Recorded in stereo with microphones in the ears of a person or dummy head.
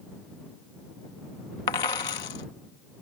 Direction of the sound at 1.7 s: 20° left (ahead or behind).